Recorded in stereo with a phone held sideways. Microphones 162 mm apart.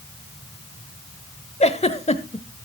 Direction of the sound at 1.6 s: 40° left (ahead or behind).